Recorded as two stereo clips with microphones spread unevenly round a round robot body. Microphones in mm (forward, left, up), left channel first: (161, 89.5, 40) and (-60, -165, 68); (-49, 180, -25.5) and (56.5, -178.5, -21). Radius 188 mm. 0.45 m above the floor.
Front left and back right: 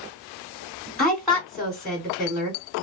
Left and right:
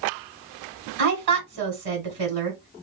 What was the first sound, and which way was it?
A woman speaking, 35° right.